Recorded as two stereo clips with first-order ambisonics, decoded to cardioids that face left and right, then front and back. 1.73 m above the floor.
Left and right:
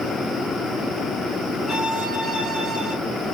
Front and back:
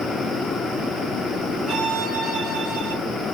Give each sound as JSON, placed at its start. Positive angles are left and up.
{"t": 1.7, "sound": "a violin", "azimuth_deg": 165, "distance_m": 1.8}